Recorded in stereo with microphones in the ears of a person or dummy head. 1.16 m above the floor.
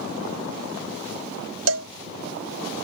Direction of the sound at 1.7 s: 75° right (ahead or behind).